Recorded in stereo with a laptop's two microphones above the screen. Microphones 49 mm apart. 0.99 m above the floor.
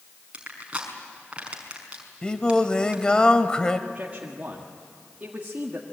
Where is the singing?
15° left (ahead or behind), 1.6 m.